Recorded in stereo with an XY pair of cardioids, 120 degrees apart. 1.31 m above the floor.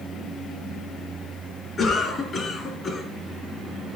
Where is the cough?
45° left, 3 m.